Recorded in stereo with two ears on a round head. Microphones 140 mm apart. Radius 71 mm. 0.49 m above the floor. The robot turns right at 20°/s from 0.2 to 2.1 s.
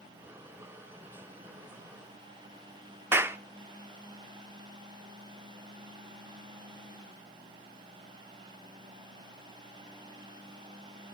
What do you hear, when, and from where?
3.1 s a clap: 15° right (ahead or behind), 0.5 m